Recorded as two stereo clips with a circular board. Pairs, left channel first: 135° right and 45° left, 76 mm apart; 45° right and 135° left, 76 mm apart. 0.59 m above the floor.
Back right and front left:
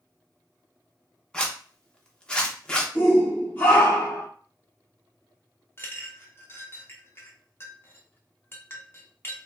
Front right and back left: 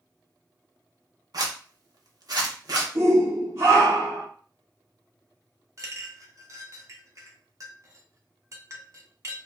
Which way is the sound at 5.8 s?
170° left.